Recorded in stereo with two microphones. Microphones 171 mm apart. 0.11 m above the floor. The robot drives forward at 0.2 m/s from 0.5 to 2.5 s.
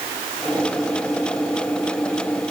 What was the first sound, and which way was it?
Only background noise.